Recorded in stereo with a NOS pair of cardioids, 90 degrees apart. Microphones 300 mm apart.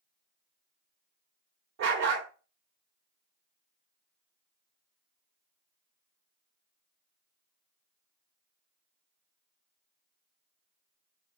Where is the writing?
No writing in this recording.